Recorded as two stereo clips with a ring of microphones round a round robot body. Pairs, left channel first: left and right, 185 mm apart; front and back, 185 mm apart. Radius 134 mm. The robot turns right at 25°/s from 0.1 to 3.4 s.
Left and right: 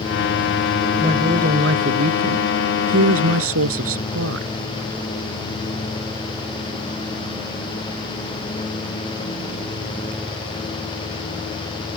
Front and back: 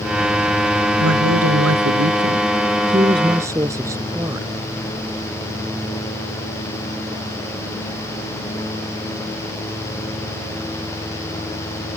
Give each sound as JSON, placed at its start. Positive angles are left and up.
{"t": 1.0, "sound": "a woman speaking", "azimuth_deg": -160}